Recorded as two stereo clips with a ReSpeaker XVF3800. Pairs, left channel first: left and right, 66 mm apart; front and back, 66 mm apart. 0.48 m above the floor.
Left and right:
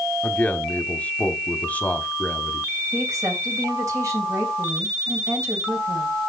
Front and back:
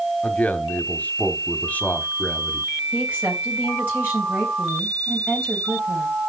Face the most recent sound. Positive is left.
turn(degrees=-120)